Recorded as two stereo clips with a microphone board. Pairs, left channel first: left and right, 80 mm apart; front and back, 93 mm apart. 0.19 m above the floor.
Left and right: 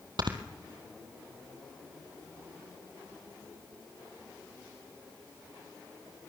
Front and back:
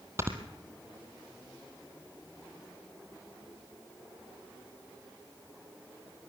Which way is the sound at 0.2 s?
120° right.